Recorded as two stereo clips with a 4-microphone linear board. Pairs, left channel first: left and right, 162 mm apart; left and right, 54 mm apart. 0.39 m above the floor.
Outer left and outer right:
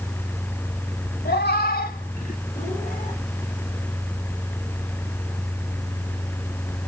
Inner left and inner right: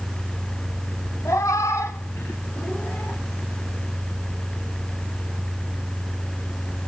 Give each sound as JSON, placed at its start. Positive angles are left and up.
{"t": 1.2, "sound": "a cat meowing", "side_deg": 75, "distance_m": 0.7}